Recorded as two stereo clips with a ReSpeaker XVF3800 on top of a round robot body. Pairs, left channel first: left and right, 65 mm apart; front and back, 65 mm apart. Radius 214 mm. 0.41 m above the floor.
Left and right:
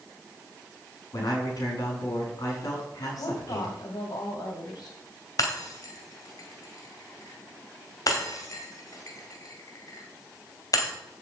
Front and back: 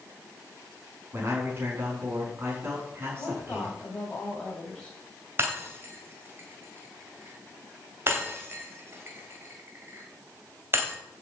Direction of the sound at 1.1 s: 125° left.